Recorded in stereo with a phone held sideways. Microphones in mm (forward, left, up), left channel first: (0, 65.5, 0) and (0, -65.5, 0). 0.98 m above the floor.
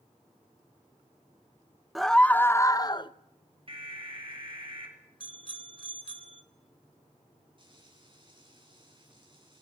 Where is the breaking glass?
I don't hear breaking glass.